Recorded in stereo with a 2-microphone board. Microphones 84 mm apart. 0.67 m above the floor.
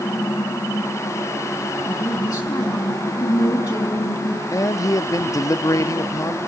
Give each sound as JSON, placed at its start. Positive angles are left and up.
{"t": 1.9, "sound": "a woman speaking", "side_deg": 55, "distance_m": 5.0}
{"t": 4.5, "sound": "a man speaking", "side_deg": 45, "distance_m": 0.6}